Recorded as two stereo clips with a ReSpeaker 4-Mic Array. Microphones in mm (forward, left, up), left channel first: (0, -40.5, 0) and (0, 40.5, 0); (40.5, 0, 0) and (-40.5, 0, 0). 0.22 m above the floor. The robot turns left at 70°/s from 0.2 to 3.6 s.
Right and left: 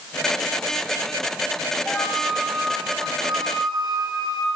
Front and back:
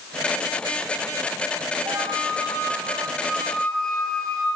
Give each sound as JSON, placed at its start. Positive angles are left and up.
{"t": 1.9, "sound": "a flute", "azimuth_deg": -160, "distance_m": 5.0}